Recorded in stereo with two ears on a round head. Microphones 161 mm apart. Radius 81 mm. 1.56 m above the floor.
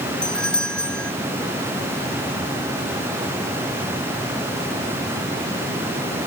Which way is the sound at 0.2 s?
5° left (ahead or behind).